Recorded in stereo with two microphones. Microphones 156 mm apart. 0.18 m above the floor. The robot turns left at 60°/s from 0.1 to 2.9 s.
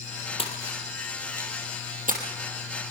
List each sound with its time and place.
0.4 s a splash: 40° left (ahead or behind), 4 m; by 2.2 s 65° right (ahead or behind), 4 m